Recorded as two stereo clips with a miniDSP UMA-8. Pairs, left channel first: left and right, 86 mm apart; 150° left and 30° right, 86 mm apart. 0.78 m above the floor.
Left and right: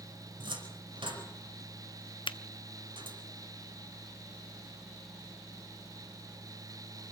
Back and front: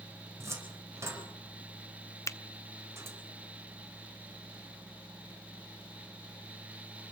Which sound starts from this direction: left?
A finger snap, at 2.3 s.